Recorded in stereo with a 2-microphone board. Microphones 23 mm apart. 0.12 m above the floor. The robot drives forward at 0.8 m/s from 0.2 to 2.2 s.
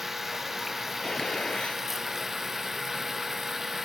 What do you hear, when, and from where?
0.0 s running water: 10° right (ahead or behind)
1.0 s a gunshot: 35° left (ahead or behind); by 1.8 s 50° left (ahead or behind)